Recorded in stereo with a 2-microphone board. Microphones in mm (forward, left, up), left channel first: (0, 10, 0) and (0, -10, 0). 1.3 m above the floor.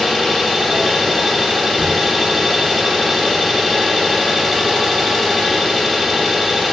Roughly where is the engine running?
Centre.